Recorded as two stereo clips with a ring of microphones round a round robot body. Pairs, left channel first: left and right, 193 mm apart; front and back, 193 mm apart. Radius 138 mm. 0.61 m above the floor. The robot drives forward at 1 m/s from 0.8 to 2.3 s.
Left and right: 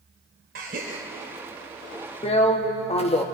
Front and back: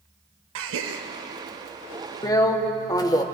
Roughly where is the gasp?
Behind right.